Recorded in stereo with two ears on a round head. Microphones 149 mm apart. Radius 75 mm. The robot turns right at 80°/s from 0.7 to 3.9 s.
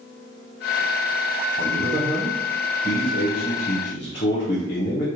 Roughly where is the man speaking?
Right.